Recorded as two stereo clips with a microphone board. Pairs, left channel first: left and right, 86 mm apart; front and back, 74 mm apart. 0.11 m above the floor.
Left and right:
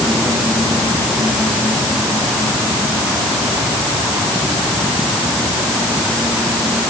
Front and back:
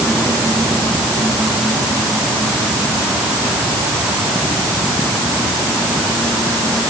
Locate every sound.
Only background noise.